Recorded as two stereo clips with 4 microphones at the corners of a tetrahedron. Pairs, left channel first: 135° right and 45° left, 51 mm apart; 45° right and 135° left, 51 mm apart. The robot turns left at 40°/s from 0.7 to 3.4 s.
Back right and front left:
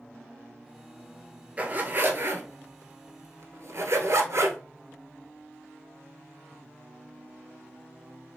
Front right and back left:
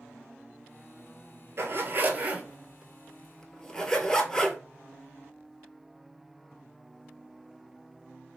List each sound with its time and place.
1.6 s a zipper: 110° left, 0.7 m; by 4.6 s 35° left, 0.7 m